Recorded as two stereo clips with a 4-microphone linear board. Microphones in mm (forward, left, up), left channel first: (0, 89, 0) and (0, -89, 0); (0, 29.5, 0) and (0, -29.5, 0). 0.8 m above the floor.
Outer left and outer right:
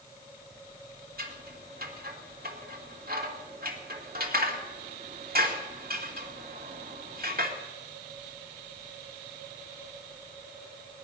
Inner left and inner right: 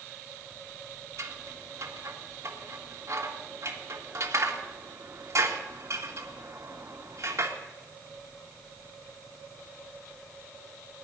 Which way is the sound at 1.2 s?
60° right (ahead or behind).